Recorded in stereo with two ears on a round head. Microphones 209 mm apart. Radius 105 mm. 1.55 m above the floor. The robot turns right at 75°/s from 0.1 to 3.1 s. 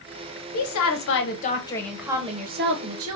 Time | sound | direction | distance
0.5 | a woman speaking | 75° left | 0.8 m